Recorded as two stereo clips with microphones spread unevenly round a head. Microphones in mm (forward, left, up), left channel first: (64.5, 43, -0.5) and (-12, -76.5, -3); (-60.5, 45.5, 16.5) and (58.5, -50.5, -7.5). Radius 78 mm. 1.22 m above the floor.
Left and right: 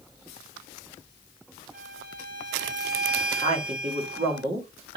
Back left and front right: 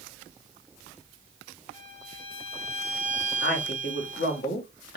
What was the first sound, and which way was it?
A violin, 155° left.